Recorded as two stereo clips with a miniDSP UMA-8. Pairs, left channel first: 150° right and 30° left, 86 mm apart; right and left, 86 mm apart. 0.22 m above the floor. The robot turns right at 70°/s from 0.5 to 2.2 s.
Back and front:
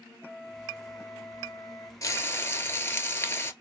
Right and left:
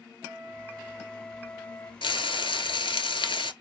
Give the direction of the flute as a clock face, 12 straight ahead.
8 o'clock.